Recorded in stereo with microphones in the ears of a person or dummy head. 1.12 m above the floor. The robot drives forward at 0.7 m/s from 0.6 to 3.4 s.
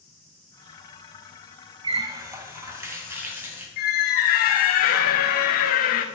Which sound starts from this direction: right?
A running tap, at 1.8 s.